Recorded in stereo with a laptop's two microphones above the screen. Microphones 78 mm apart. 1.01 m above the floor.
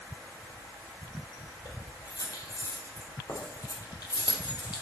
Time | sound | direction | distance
1.6 | keys jangling | 55° left (ahead or behind) | 3.5 m